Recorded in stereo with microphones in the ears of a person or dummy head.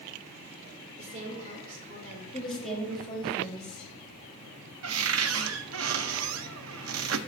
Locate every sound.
1.0 s a woman speaking: 40° right (ahead or behind), 3 m
2.3 s a woman speaking: 5° left (ahead or behind), 3.5 m
4.8 s a cupboard door: 75° right (ahead or behind), 0.6 m